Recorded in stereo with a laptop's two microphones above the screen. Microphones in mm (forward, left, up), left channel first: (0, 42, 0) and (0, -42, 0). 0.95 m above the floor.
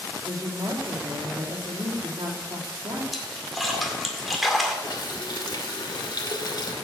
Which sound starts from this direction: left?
A running tap, at 4.8 s.